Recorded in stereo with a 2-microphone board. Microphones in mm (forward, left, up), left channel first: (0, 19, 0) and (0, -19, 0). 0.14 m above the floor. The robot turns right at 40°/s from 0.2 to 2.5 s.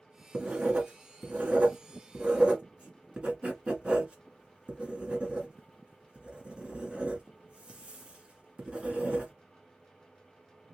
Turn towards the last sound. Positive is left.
turn(degrees=-25)  # may be behind; listen again after turning